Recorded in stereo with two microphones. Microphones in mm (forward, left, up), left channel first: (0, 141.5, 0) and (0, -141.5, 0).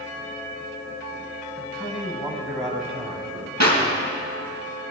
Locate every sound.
1.6 s a man speaking: 10° right (ahead or behind), 2.5 m; by 3.5 s 25° right (ahead or behind), 3.5 m
3.6 s a clap: 70° right (ahead or behind), 3 m